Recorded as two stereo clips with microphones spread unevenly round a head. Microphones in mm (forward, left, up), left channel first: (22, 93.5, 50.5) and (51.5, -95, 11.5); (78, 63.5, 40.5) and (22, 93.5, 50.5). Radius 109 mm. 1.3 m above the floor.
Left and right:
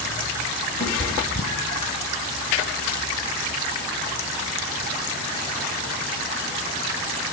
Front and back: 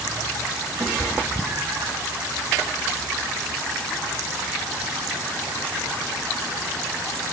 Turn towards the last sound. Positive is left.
turn(degrees=125)